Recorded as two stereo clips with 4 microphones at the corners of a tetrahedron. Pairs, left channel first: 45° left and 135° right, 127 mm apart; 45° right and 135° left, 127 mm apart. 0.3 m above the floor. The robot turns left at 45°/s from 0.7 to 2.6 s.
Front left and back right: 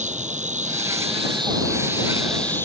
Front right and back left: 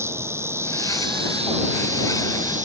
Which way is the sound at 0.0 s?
155° right.